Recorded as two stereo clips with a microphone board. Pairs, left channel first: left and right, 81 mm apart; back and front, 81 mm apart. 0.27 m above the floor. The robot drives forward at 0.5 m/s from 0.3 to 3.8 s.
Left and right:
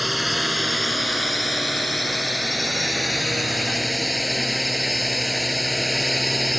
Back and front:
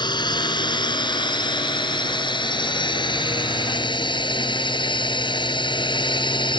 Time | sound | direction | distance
0.0 | a drone | straight behind | ?